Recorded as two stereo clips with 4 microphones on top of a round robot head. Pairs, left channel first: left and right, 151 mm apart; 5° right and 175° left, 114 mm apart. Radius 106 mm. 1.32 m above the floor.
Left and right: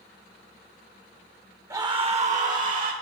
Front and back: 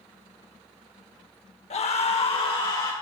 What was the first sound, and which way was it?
A scream, 20° right.